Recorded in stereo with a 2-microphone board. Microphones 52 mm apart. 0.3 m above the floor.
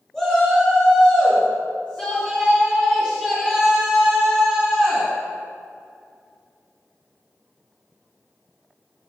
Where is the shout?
10° left (ahead or behind), 4 m; by 5.1 s 20° left (ahead or behind), 9.5 m.